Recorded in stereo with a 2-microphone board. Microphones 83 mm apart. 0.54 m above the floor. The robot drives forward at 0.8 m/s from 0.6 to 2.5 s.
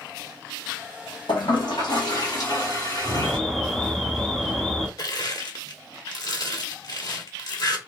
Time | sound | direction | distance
1.3 | a toilet flushing | 75° left (ahead or behind) | 2 m
3.2 | an alarm | 5° left (ahead or behind) | 0.9 m
5.0 | crushing | 55° left (ahead or behind) | 1.4 m